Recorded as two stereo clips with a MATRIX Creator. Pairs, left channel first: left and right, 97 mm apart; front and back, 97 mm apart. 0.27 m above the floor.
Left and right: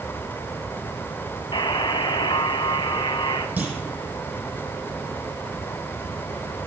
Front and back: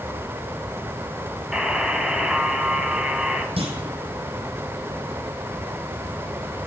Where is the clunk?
165° right, 4.5 m.